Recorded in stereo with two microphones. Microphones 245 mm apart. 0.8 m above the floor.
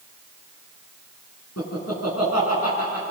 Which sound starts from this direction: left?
Laughter, at 1.6 s.